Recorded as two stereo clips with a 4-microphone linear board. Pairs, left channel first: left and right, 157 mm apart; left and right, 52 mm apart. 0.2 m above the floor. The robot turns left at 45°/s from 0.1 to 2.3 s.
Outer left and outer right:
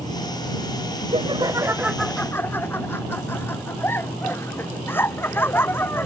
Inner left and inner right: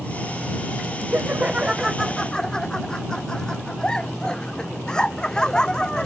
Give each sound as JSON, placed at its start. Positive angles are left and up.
{"t": 1.1, "sound": "laughter", "azimuth_deg": -140}